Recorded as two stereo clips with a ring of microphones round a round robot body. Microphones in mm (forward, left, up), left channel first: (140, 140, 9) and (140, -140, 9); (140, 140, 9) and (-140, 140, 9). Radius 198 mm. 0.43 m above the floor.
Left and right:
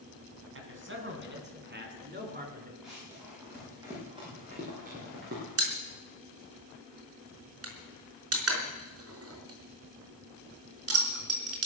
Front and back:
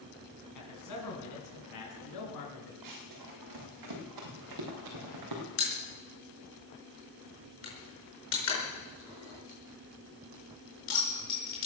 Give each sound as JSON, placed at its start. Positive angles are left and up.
{"t": 0.6, "sound": "a man speaking", "azimuth_deg": -45, "distance_m": 4.0}
{"t": 2.8, "sound": "running footsteps", "azimuth_deg": 180, "distance_m": 6.0}
{"t": 5.6, "sound": "a pop", "azimuth_deg": -50, "distance_m": 4.5}